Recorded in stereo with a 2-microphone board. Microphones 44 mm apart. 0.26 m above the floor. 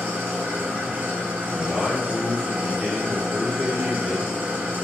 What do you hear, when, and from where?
0.0 s an engine running: 55° right (ahead or behind), 1.8 m
1.5 s a man speaking: 10° right (ahead or behind), 1.2 m